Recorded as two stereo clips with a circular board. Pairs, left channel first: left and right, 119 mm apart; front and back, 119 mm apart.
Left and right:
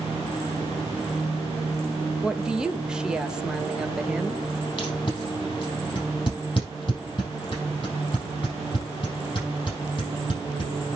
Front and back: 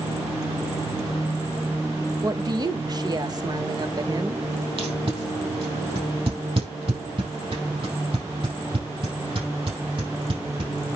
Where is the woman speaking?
170° right, 0.9 m.